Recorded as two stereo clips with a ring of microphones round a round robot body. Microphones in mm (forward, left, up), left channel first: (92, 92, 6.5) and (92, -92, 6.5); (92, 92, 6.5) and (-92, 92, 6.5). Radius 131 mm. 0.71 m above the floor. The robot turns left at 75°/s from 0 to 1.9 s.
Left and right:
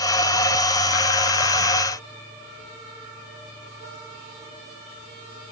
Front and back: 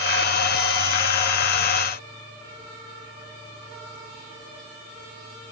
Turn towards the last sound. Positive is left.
No sound to turn to.